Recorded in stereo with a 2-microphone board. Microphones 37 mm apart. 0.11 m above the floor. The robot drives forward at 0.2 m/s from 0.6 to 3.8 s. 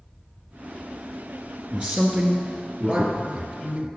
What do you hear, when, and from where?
1.7 s a man speaking: 35° right (ahead or behind), 1.5 m; by 3.9 s 30° right (ahead or behind), 1.7 m